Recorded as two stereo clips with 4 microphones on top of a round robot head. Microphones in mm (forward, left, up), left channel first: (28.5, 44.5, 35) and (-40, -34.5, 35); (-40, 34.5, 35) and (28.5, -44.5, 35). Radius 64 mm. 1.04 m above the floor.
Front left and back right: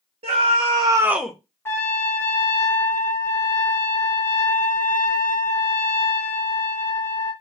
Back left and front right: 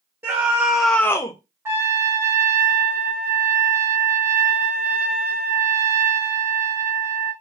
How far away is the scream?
About 0.9 m.